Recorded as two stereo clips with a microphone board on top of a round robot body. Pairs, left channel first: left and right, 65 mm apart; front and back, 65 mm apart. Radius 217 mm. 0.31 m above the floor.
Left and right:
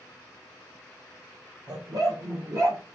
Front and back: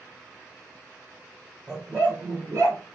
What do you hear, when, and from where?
1.7 s a dog barking: 105° right, 1.9 m; by 2.8 s 140° right, 2.5 m